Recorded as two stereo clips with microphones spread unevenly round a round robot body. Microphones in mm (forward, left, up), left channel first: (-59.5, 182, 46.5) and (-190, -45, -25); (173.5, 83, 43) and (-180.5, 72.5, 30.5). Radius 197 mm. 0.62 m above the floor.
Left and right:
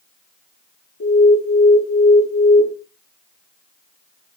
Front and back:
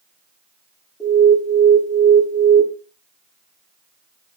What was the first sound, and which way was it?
An alarm, 90° left.